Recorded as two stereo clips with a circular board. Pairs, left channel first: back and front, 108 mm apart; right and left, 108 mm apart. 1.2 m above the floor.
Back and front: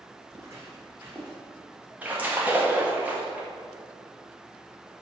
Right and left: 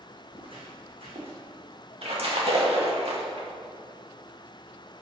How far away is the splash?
About 2 m.